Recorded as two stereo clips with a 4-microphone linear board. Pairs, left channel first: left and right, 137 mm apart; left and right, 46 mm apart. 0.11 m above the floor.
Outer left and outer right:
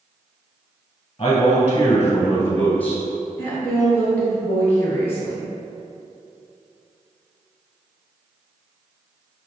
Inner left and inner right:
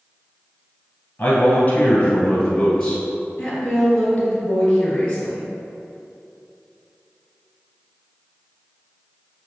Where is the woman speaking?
20° left (ahead or behind), 1.7 m.